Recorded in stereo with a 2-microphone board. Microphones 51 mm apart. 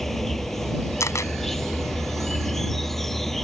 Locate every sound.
0.0 s an insect: 5° left (ahead or behind)
1.0 s a camera shutter: 80° left